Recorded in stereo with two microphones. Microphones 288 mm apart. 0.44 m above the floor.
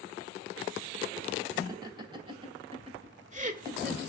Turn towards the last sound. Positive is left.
turn(degrees=-35)  # may be behind; listen again after turning